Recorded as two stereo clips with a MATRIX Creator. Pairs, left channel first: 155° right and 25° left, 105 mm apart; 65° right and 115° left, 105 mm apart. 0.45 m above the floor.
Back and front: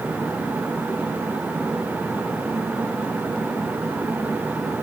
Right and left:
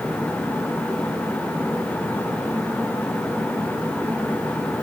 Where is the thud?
No thud in this recording.